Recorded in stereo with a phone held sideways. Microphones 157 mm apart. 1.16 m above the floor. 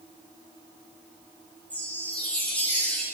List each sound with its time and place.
1.7 s a chime: 10° left (ahead or behind), 1.3 m